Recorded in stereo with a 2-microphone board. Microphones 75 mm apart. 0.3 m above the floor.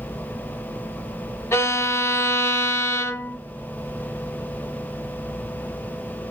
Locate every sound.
1.5 s a violin: 35° left (ahead or behind), 0.7 m